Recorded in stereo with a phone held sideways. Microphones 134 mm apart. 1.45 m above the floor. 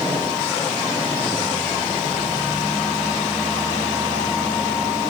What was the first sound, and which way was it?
Only background noise.